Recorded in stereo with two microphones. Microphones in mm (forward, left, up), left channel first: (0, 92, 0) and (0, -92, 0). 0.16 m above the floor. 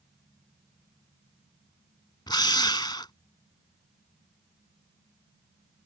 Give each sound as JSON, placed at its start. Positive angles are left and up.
{"t": 2.3, "sound": "a drill", "side_deg": 25}